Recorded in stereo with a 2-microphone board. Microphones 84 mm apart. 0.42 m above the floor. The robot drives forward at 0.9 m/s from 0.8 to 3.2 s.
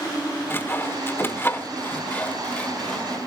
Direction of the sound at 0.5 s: 25° left (ahead or behind).